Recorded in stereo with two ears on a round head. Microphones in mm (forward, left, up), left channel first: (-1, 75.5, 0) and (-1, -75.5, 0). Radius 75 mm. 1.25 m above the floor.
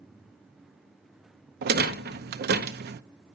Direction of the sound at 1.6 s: 60° right (ahead or behind).